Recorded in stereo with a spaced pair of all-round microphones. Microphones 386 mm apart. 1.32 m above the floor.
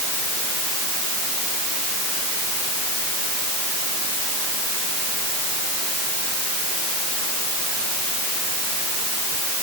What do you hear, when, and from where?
Only background noise.